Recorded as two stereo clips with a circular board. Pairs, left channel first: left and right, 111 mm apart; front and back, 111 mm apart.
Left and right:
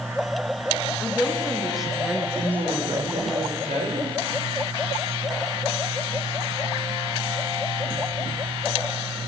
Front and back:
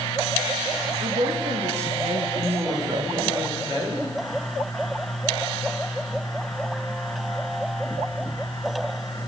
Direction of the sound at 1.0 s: 175° left.